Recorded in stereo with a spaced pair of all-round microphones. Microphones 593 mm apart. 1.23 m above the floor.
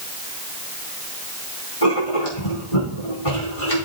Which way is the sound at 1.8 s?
65° left (ahead or behind).